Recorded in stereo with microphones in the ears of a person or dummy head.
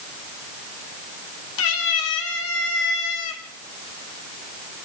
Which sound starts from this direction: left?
A cat meowing, at 1.6 s.